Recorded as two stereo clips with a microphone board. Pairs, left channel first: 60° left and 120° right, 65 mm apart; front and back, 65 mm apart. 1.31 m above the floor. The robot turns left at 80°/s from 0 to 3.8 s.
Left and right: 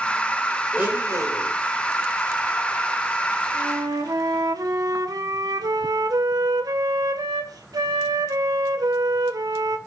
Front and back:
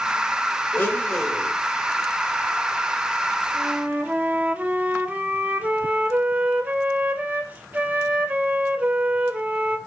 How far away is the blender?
About 4.5 m.